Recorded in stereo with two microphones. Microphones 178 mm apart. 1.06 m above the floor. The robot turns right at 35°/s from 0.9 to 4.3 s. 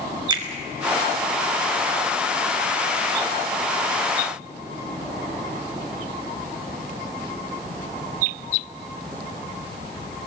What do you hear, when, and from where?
0.3 s a finger snap: 25° right (ahead or behind), 2.5 m